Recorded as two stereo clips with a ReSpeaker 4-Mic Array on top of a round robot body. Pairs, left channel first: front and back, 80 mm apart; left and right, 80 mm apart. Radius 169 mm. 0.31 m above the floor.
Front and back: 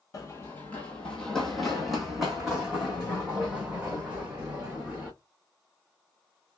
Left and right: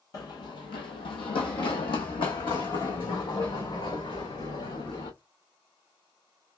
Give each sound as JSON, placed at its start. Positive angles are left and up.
{"t": 0.1, "sound": "running footsteps", "azimuth_deg": 45, "distance_m": 0.6}